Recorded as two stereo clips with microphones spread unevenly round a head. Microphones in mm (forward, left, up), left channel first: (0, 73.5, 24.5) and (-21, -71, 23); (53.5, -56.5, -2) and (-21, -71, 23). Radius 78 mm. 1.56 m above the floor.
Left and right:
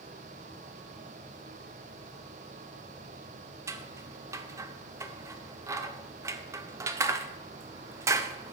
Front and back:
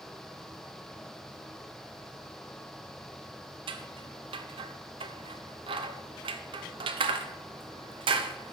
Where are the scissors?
170° right, 0.7 m.